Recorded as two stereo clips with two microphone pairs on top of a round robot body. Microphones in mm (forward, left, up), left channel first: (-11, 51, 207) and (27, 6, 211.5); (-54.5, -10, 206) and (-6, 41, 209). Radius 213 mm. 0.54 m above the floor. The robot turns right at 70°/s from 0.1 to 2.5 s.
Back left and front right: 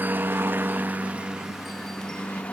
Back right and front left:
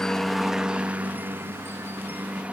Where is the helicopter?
65° right; by 2.5 s 100° left.